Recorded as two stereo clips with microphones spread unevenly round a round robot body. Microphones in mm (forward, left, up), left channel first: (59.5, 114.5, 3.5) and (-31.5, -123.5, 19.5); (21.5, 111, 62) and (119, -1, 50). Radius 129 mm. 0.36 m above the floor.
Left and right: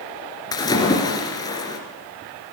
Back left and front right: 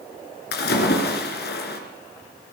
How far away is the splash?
About 2.5 m.